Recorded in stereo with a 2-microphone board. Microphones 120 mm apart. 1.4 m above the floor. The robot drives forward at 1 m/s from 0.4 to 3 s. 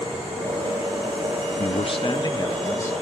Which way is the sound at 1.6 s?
60° left (ahead or behind).